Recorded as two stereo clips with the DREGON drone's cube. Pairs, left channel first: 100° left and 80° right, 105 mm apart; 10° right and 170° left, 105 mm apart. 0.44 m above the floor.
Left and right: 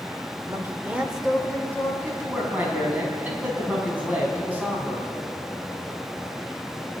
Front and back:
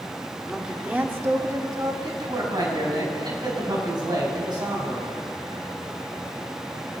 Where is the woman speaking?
105° right, 1.3 m; by 1.9 s 155° left, 1.5 m.